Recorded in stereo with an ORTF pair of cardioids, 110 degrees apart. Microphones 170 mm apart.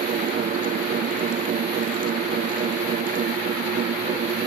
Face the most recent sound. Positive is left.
turn(degrees=-55)